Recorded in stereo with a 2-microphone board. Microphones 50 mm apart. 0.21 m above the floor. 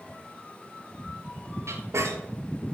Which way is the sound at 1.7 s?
80° right.